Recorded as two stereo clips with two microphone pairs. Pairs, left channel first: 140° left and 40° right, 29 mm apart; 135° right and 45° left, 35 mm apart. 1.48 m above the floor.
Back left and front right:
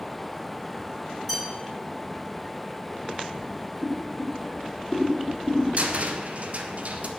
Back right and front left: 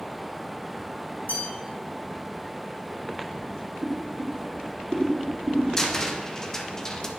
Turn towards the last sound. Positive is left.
turn(degrees=-70)